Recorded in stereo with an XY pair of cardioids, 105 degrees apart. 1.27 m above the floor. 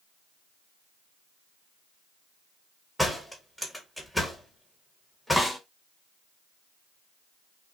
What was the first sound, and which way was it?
A door slam, 5° left.